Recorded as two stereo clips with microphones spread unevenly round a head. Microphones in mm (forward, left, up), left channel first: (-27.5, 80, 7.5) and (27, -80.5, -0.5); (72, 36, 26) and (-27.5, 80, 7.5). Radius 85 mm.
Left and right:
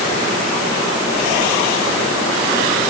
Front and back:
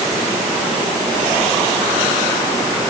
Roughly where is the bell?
I don't hear a bell.